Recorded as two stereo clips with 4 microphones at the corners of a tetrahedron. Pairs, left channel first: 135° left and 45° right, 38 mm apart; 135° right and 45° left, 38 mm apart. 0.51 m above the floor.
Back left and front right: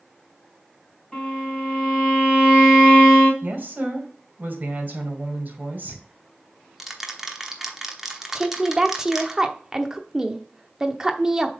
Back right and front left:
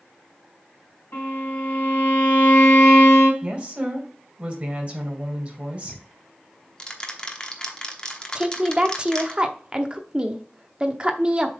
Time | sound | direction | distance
1.1 | a violin | 150° right | 3.5 m
3.4 | a woman speaking | 10° right | 2 m
5.8 | ticking | 115° right | 1.0 m
8.3 | a woman speaking | 10° left | 0.8 m